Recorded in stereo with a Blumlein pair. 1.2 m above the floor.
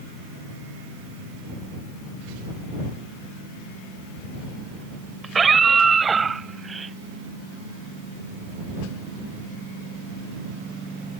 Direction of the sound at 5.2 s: 15° right.